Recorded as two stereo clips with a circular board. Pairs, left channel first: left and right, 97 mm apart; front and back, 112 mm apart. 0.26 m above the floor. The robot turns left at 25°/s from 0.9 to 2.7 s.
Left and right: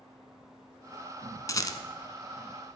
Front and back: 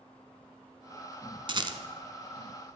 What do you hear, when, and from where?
1.5 s a rattle: 140° left, 1.2 m; by 1.8 s 135° left, 1.2 m